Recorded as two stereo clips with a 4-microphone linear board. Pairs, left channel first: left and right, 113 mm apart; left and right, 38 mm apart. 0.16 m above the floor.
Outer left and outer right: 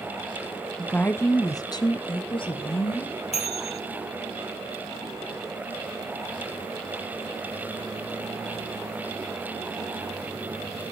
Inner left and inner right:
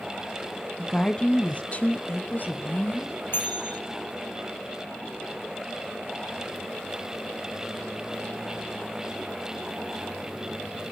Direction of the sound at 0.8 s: 5° left (ahead or behind).